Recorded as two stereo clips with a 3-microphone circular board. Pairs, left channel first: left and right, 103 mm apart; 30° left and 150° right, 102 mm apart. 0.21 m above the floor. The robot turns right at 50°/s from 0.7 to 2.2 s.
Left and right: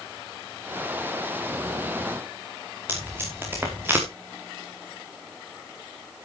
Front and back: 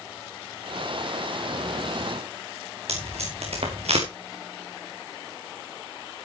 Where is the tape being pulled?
160° right, 4 m.